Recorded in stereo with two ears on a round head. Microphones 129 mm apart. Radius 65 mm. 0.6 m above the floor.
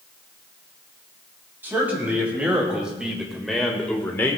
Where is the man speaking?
15° right (ahead or behind), 3.5 m; by 4.4 s 20° left (ahead or behind), 1.3 m.